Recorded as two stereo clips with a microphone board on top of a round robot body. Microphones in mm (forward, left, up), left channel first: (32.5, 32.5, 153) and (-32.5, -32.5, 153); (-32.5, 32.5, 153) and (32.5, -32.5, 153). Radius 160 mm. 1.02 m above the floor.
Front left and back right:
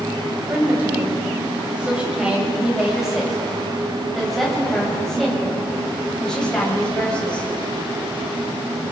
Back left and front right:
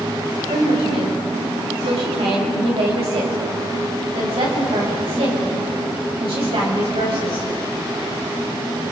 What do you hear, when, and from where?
0.5 s a woman speaking: 65° right, 7.5 m; by 7.5 s 35° right, 9 m